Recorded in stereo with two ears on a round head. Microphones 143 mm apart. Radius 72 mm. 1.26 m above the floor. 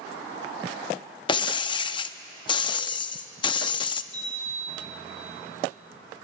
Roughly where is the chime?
Centre.